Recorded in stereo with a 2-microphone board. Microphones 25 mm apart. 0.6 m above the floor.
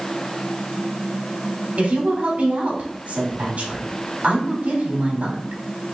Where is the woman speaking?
65° right (ahead or behind), 3.5 m.